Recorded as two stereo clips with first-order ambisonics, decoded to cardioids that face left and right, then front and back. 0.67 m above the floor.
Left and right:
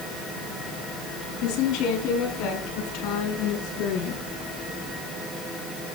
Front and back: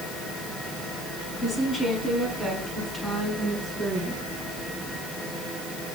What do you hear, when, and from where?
1.4 s a woman speaking: 70° left, 5 m; by 4.2 s 85° left, 7 m